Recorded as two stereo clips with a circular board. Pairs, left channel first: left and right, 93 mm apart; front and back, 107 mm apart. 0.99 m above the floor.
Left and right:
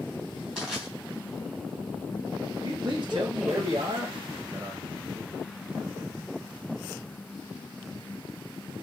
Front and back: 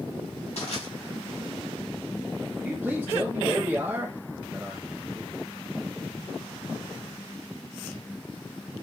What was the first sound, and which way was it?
Crushing, 10° right.